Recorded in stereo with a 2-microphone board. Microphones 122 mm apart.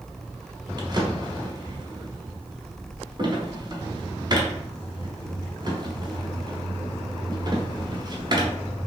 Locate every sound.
0.8 s a drawer: 35° right (ahead or behind), 1.0 m